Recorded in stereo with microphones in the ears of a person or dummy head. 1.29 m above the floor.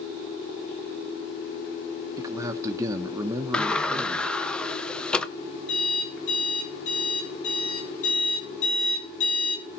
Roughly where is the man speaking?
Centre.